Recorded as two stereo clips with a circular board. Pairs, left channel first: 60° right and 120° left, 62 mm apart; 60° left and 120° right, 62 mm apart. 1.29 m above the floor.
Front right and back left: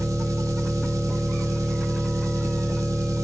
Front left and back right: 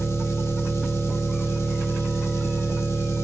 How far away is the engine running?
About 1.5 m.